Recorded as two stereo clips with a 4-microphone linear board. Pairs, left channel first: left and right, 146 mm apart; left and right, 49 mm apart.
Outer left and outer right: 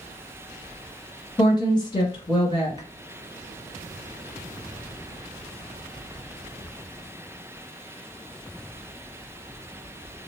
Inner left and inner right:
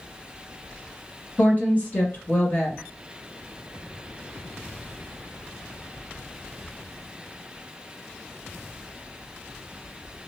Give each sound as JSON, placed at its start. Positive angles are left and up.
{"t": 1.4, "sound": "a woman speaking", "side_deg": 30, "distance_m": 1.1}